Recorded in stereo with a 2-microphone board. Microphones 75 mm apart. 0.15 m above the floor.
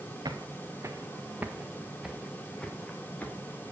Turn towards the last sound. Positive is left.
turn(degrees=25)  # may be behind; listen again after turning